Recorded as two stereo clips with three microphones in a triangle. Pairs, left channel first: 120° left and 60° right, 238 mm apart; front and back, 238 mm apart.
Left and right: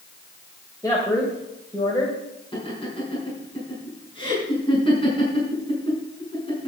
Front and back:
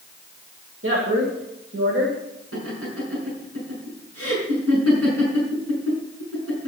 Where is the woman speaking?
165° right, 2.5 m.